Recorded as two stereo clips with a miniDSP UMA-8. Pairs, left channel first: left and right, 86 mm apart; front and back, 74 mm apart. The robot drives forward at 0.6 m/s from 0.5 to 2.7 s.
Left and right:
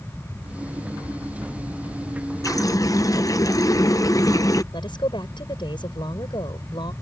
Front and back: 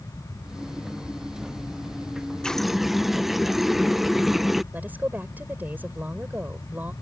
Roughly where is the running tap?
Left.